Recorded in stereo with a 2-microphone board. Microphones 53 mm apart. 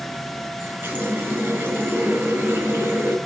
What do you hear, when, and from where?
0.6 s a running tap: 45° right (ahead or behind), 4 m